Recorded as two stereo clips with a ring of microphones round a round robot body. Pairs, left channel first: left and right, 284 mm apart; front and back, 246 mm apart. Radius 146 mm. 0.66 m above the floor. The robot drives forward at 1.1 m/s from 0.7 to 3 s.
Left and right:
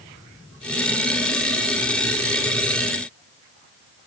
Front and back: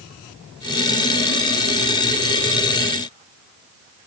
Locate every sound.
Only background noise.